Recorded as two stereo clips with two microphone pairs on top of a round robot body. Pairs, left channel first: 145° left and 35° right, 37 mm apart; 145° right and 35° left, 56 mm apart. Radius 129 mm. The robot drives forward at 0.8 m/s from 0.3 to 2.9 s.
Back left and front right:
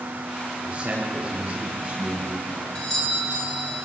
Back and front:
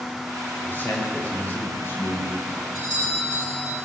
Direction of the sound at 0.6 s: 90° right.